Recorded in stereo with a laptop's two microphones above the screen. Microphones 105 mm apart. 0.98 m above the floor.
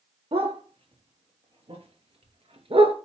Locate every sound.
0.3 s a dog barking: 65° right (ahead or behind), 6 m